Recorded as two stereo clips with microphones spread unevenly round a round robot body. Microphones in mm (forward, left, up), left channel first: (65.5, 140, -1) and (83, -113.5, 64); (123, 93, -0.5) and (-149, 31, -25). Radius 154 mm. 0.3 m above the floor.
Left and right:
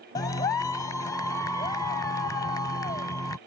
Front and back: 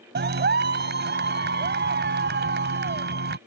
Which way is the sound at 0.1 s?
155° left.